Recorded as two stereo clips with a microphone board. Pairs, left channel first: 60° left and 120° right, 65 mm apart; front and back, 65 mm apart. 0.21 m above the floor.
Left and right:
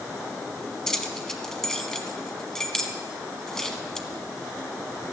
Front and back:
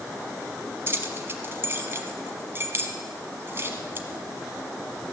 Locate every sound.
0.9 s keys jangling: 140° left, 1.1 m